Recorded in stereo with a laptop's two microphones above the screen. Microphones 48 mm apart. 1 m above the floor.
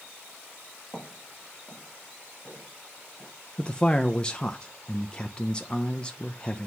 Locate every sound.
0.9 s footsteps: 30° left (ahead or behind), 5 m; by 3.3 s 50° left (ahead or behind), 5 m
3.6 s a man speaking: 20° left (ahead or behind), 0.5 m